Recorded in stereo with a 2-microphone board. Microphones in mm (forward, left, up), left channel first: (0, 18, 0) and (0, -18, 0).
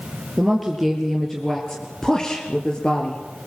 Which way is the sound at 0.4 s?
5° right (ahead or behind).